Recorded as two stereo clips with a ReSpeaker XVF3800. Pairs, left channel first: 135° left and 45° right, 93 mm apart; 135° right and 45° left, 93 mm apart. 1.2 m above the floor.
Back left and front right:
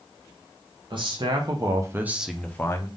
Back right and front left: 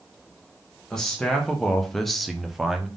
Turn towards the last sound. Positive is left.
turn(degrees=130)